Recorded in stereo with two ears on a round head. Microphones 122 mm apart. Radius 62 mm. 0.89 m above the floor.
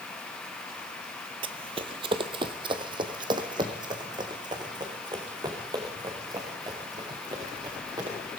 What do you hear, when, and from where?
1.4 s running footsteps: 40° right (ahead or behind), 1.2 m; by 8.2 s 30° right (ahead or behind), 6.5 m